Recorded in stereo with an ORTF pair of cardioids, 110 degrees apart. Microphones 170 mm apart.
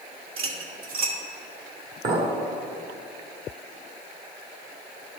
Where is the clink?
45° right, 1.7 m.